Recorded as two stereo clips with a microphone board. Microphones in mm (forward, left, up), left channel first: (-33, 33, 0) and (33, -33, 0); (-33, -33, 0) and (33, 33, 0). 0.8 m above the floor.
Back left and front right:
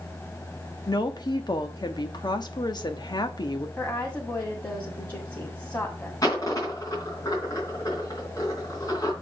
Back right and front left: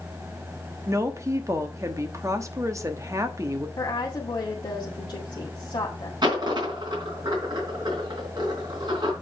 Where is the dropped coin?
85° left, 3.5 m.